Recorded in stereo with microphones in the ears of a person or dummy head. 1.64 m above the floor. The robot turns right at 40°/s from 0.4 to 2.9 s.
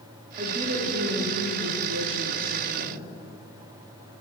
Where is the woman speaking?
150° right, 0.8 m; by 3.1 s 50° right, 0.8 m.